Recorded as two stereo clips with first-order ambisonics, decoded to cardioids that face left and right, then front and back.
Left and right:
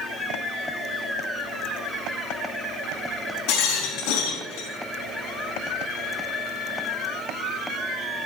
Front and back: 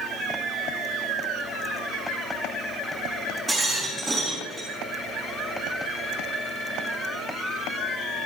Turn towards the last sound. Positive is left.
turn(degrees=90)